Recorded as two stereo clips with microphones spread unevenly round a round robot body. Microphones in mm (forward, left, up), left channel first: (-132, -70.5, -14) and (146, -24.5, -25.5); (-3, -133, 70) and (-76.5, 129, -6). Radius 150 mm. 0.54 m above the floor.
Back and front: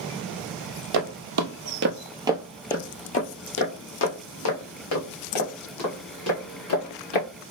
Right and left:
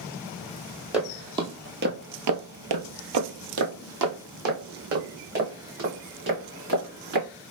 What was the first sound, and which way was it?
Footsteps, 10° left.